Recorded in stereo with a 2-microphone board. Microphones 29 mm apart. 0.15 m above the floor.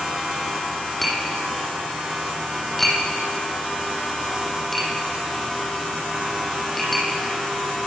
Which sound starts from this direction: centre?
Tapping, at 1.0 s.